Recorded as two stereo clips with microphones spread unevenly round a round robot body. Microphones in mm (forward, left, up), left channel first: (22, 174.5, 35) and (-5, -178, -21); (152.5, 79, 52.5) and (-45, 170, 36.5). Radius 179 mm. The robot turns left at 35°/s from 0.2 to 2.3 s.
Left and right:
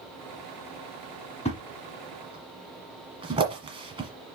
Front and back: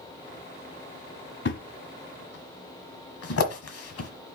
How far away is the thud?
About 1.4 m.